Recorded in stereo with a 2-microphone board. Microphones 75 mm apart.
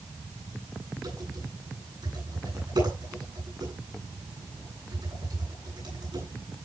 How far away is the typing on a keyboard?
About 10 m.